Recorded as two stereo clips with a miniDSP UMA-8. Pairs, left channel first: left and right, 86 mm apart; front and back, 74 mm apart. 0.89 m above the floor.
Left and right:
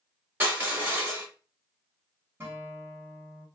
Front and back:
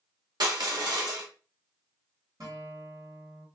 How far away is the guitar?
About 1.9 m.